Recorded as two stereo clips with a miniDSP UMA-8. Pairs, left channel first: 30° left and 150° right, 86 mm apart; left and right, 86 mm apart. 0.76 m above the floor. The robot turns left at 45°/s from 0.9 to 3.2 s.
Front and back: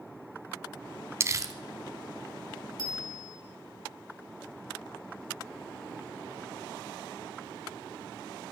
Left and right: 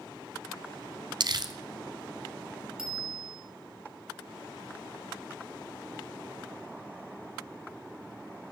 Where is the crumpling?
100° right, 1.0 m; by 1.5 s 115° right, 1.0 m.